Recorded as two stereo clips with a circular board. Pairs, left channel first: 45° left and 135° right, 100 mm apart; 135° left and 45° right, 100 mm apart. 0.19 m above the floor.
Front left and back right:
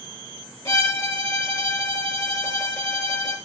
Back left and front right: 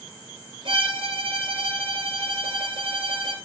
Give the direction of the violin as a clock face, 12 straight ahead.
12 o'clock.